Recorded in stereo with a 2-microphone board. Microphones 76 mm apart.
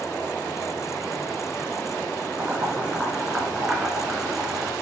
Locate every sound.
2.4 s boiling: 10° right (ahead or behind), 3 m